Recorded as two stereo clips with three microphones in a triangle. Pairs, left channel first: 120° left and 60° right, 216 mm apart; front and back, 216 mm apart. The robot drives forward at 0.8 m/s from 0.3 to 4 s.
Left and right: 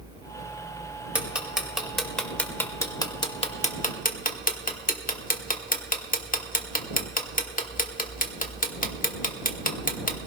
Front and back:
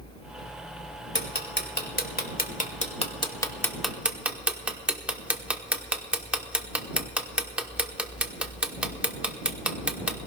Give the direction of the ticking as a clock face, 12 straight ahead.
11 o'clock.